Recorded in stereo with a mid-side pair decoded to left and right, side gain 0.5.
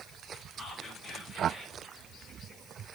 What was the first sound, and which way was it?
Whispering, 25° left.